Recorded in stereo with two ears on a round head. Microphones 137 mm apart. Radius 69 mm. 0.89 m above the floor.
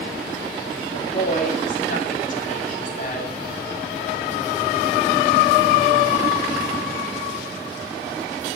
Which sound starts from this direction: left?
A woman speaking, at 0.9 s.